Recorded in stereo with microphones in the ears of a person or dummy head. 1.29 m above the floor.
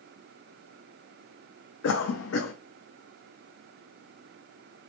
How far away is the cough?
About 0.6 m.